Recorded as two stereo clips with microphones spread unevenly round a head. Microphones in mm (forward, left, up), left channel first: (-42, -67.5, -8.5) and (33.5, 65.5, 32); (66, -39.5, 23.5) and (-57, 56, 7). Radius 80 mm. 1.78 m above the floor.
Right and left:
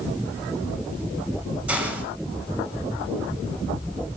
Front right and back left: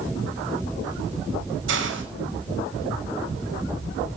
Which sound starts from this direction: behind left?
A hiss, at 1.7 s.